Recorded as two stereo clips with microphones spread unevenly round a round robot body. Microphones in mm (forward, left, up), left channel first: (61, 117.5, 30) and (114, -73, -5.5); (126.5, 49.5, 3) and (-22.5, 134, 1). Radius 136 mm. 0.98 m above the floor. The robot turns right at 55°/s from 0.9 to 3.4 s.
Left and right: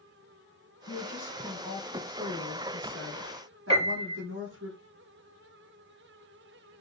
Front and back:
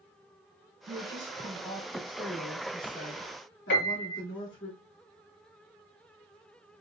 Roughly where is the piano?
Ahead.